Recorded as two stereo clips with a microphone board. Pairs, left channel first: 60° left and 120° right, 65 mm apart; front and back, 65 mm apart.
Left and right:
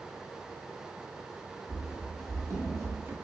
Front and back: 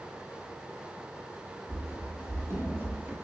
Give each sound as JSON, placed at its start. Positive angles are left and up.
{"t": 1.7, "sound": "running footsteps", "azimuth_deg": -145, "distance_m": 1.7}